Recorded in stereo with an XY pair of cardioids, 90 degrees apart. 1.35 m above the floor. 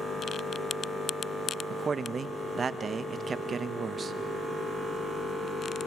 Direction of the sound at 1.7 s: 45° right.